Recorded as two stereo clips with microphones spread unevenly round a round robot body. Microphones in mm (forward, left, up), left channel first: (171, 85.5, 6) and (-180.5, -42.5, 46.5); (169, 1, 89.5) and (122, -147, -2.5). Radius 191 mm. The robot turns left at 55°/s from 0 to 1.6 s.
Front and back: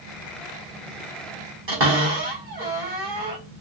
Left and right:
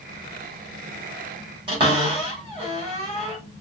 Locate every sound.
1.7 s a cupboard door: 105° right, 1.7 m